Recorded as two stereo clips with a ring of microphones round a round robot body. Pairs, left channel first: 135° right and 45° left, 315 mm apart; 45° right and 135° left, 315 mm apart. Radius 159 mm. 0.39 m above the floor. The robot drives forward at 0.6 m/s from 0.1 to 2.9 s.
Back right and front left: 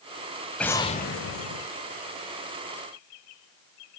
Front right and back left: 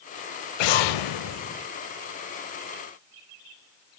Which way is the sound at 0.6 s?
50° right.